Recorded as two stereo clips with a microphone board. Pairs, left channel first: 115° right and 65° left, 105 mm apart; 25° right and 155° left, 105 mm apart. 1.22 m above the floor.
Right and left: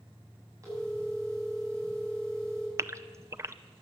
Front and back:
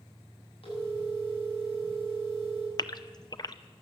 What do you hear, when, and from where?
0.6 s a phone ringing: 10° left, 7.5 m
2.8 s a gasp: 15° left, 0.6 m